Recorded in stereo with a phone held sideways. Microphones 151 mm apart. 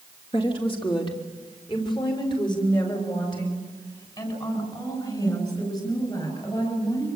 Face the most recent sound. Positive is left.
turn(degrees=25)  # may be behind; listen again after turning